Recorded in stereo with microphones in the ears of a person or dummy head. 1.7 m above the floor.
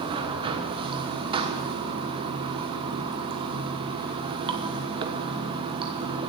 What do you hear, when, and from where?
0.0 s running water: 25° right (ahead or behind), 1.0 m